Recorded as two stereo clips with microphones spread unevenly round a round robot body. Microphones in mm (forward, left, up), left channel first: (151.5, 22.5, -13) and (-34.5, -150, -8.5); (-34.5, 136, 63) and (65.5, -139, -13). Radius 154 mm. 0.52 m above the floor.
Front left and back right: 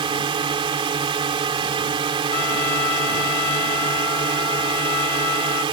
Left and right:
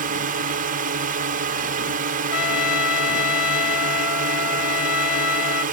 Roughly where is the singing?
I don't hear singing.